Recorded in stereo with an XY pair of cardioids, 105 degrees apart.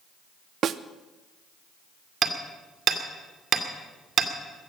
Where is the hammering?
55° right, 2 m.